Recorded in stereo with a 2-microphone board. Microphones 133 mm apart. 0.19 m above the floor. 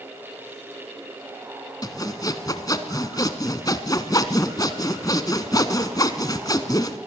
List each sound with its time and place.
1.8 s sawing: 30° left (ahead or behind), 1.1 m